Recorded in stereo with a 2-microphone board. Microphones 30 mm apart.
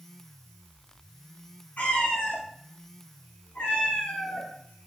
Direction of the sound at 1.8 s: 65° left (ahead or behind).